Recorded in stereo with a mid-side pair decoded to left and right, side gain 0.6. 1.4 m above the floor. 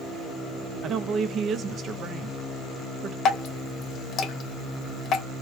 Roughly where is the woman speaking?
Ahead right.